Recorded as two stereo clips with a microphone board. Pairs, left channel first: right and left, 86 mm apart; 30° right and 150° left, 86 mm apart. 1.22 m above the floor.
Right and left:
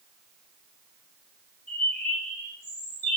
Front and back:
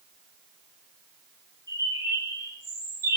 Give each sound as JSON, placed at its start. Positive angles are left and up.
{"t": 1.7, "sound": "a bird", "azimuth_deg": -160, "distance_m": 3.5}